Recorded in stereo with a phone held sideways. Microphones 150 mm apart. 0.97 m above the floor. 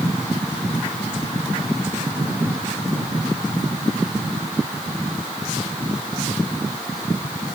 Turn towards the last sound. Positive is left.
No sound to turn to.